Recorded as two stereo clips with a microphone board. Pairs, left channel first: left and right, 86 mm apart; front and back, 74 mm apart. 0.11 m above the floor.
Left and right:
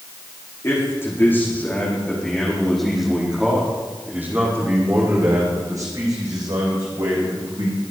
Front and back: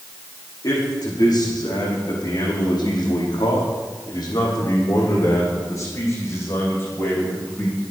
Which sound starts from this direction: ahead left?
A man speaking, at 0.6 s.